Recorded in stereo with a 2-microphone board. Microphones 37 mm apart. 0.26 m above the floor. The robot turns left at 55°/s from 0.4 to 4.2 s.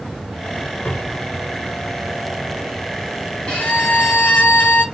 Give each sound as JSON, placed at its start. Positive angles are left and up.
{"t": 0.8, "sound": "a cupboard door", "side_deg": 60, "distance_m": 0.9}
{"t": 3.5, "sound": "a violin", "azimuth_deg": 145, "distance_m": 1.2}